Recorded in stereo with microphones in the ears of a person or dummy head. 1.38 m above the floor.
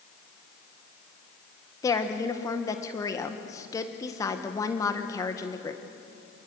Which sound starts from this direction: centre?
A woman speaking, at 1.8 s.